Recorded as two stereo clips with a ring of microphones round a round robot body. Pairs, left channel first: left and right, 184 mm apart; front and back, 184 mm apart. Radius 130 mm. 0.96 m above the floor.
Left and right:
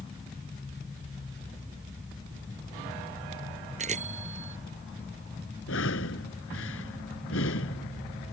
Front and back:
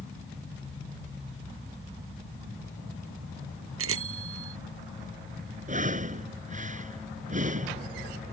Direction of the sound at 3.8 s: 155° right.